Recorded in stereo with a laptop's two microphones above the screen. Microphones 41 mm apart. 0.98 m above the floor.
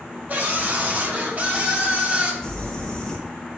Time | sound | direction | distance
0.3 | a scream | 45° right (ahead or behind) | 5.5 m
2.4 | crumpling | 15° left (ahead or behind) | 4 m